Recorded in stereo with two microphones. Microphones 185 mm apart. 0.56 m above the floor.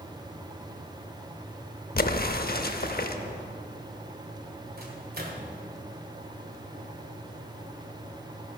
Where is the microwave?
55° right (ahead or behind), 1.6 m.